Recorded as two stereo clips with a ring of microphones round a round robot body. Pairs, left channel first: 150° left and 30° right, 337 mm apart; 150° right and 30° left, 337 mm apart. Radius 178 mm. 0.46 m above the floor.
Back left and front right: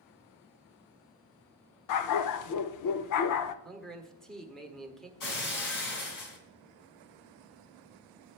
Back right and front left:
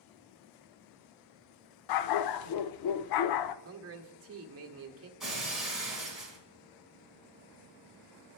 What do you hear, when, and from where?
1.9 s a dog barking: 175° right, 0.5 m
3.6 s a man speaking: 60° left, 1.3 m
5.2 s breaking glass: 120° left, 2.5 m